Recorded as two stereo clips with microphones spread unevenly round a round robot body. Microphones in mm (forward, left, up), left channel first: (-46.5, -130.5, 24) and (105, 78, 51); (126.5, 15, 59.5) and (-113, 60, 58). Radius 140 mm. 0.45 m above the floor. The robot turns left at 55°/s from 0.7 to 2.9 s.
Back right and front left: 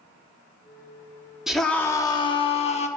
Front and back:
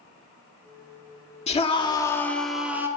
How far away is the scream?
About 1.5 m.